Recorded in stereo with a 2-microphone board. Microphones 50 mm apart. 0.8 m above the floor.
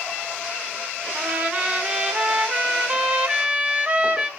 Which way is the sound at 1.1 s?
20° right (ahead or behind).